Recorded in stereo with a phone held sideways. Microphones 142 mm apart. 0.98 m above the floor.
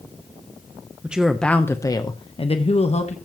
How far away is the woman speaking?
About 0.8 m.